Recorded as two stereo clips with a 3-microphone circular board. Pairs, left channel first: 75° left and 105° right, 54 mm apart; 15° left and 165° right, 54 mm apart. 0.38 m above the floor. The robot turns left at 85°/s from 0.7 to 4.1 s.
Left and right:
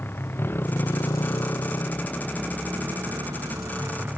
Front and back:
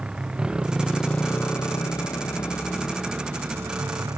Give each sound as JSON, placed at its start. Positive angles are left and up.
{"t": 0.0, "sound": "a motorcycle", "azimuth_deg": 125}